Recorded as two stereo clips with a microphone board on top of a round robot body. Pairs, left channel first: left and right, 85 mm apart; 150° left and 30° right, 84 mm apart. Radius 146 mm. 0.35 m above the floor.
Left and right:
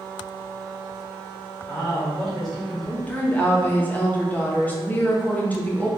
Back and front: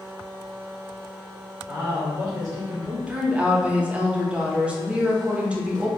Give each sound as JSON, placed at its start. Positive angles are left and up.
{"t": 1.7, "sound": "a man speaking", "azimuth_deg": 10, "distance_m": 1.7}
{"t": 3.1, "sound": "a woman speaking", "azimuth_deg": 35, "distance_m": 1.2}